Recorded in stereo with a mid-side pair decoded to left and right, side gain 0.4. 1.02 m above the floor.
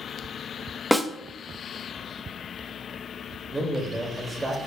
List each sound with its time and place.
0.9 s a snare drum: 5° right, 0.9 m
3.5 s a man speaking: 30° right, 2 m